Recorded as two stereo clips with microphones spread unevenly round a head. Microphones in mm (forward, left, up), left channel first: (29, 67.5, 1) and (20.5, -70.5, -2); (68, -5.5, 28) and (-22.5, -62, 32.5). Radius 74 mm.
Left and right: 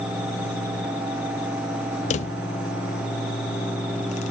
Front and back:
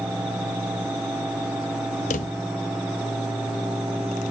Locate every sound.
2.1 s a drawer: 55° left, 0.5 m